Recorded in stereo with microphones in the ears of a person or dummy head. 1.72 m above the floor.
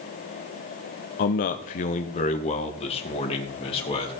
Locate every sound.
1.2 s a man speaking: 40° left (ahead or behind), 0.7 m; by 4.1 s 30° left (ahead or behind), 2.5 m